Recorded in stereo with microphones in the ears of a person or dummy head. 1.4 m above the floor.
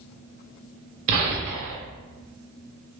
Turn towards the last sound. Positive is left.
turn(degrees=-45)  # may be behind; listen again after turning